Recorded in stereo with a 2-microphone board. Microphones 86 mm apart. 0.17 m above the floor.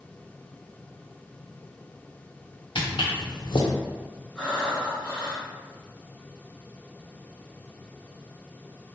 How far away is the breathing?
About 1.3 m.